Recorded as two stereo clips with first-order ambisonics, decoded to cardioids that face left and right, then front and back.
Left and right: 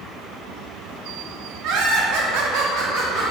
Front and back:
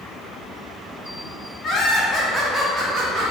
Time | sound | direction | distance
1.6 | laughter | 55° right | 0.8 m